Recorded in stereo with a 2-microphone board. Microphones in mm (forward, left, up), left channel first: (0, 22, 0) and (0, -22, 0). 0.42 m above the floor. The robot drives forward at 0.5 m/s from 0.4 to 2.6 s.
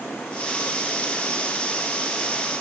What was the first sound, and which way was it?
Only background noise.